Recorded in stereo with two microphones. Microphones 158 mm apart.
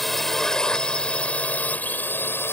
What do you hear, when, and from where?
0.0 s a drone: centre (ahead or behind); by 2.5 s 15° left (ahead or behind)